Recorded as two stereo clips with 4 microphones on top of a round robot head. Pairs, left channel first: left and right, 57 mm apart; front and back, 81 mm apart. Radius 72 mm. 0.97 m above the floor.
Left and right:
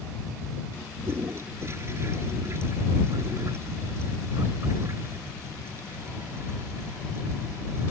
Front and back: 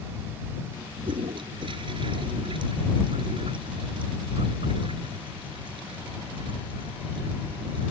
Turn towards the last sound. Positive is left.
turn(degrees=-145)